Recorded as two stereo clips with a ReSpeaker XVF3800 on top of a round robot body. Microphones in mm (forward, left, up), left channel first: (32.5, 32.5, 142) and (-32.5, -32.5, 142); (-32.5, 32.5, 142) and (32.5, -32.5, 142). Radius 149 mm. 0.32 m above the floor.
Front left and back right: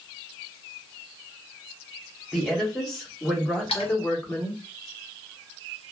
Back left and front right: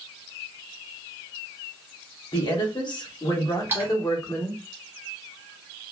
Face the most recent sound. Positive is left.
turn(degrees=25)